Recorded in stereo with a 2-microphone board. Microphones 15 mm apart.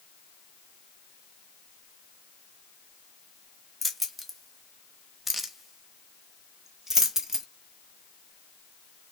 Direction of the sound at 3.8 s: 10° left (ahead or behind).